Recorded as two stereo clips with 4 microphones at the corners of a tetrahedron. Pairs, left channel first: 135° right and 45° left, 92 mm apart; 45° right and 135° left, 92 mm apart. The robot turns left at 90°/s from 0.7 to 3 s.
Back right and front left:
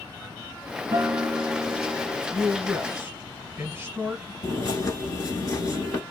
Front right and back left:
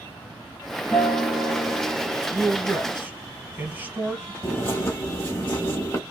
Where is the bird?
95° right, 1.1 m.